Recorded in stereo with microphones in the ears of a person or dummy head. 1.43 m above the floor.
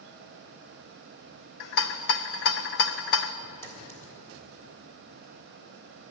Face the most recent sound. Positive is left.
turn(degrees=15)  # may be behind; listen again after turning